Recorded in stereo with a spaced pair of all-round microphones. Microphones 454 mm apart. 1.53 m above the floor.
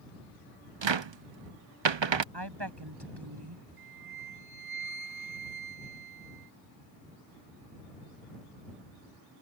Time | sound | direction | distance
0.8 | a cupboard door | 80° right | ?
2.3 | a woman speaking | 65° right (ahead or behind) | ?
3.8 | a flute | 40° left (ahead or behind) | ?